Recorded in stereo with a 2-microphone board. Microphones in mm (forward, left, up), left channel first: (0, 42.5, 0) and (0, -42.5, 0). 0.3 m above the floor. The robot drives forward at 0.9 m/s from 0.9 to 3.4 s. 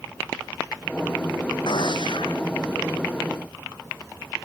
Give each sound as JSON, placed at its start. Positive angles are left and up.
{"t": 1.7, "sound": "a gunshot", "side_deg": 70}